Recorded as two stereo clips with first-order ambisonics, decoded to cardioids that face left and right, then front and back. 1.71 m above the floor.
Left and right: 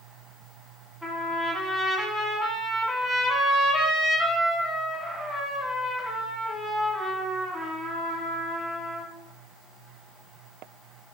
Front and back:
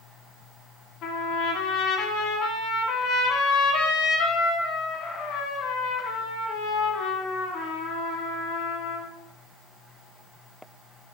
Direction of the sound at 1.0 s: 5° right.